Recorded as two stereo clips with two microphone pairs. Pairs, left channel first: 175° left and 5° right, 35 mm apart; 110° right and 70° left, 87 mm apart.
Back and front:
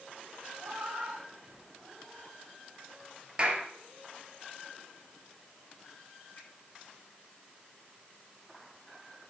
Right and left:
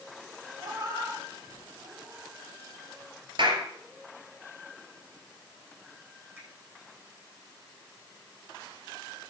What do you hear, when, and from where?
0.6 s a cat meowing: 20° left, 6 m
3.4 s a clap: 55° left, 3 m
6.4 s a finger snap: 135° left, 10 m